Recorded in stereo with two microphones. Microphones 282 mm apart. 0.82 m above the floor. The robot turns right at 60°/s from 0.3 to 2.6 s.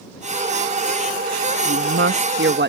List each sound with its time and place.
1.6 s a woman speaking: 115° right; by 2.7 s 55° right